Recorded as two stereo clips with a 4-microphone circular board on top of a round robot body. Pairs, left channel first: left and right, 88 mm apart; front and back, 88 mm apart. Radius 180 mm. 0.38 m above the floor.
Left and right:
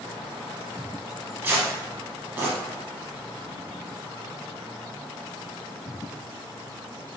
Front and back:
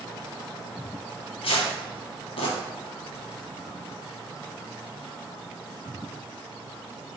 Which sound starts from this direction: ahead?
Tearing paper, at 1.4 s.